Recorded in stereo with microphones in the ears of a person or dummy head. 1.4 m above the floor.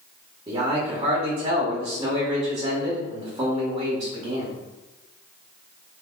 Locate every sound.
0.5 s a man speaking: 20° right (ahead or behind), 0.9 m